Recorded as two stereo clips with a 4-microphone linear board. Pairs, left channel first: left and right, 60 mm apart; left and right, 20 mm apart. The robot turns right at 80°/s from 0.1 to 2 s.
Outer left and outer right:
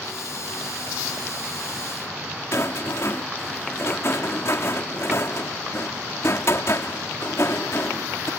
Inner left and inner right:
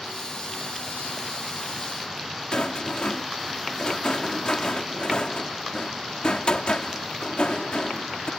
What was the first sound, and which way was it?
A rattle, 55° left (ahead or behind).